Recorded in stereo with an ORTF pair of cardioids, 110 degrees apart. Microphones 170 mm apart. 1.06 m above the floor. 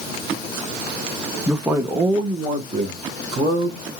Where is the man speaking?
Straight ahead, 0.9 m; by 3.9 s 50° right, 2 m.